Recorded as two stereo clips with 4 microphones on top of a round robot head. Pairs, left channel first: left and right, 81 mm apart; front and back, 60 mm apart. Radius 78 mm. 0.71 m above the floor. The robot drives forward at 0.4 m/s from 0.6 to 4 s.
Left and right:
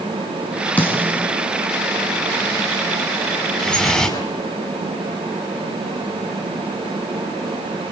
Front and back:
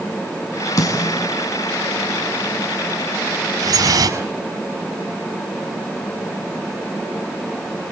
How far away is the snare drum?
About 7 m.